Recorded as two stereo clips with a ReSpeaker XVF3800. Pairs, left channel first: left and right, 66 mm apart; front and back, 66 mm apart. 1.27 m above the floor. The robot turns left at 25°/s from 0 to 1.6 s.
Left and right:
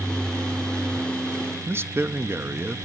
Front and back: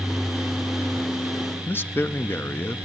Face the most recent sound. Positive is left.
turn(degrees=-50)